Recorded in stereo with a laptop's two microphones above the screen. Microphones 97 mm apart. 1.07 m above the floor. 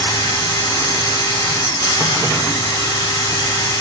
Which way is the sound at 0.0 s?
45° left (ahead or behind).